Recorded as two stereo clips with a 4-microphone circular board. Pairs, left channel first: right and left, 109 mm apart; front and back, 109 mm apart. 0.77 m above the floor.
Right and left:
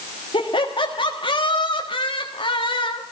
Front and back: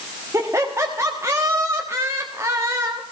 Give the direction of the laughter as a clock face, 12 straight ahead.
4 o'clock.